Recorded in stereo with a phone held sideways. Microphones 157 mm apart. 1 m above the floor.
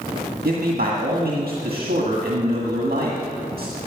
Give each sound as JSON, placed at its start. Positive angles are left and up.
{"t": 0.5, "sound": "a man speaking", "side_deg": -75, "distance_m": 1.7}